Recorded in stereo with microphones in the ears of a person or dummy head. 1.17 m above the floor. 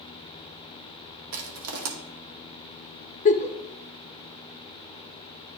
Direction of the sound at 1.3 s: 70° right (ahead or behind).